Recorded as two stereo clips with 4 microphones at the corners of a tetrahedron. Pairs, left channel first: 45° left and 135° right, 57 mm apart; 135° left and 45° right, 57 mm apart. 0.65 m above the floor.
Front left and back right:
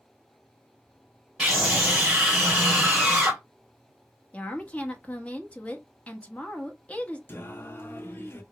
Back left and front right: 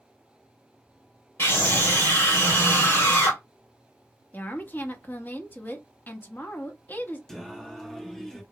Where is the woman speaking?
100° left, 0.8 m.